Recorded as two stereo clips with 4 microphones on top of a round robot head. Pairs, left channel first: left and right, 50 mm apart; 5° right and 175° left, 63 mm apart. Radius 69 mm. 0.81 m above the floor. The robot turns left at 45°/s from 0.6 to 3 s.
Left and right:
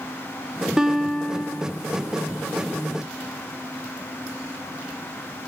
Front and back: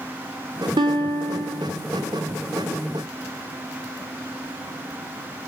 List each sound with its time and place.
0.8 s a guitar: 165° right, 0.9 m; by 1.7 s 155° left, 0.9 m